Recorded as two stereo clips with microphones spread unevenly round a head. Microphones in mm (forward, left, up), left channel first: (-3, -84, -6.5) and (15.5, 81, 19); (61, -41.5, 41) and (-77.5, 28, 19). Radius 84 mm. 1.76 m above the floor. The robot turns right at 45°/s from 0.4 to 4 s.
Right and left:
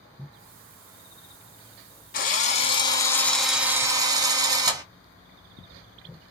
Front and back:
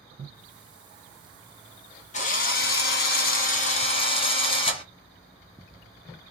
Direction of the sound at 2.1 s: 60° right.